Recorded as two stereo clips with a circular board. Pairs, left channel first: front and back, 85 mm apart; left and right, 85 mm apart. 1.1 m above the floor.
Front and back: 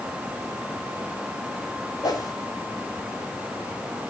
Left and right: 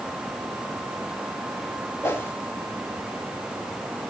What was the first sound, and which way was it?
A whoosh, 30° left.